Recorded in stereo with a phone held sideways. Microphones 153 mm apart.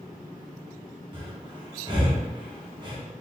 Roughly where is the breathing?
Right.